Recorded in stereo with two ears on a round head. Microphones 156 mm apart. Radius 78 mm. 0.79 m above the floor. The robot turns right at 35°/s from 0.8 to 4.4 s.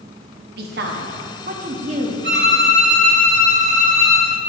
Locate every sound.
0.6 s a woman speaking: 85° right, 0.9 m; by 2.1 s 40° right, 0.9 m
2.2 s a violin: 95° right, 1.2 m; by 4.3 s 25° right, 1.2 m